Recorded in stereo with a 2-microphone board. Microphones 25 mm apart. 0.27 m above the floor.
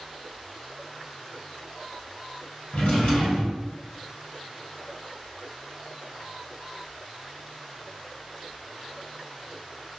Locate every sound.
2.7 s a drawer: 70° left (ahead or behind), 1.7 m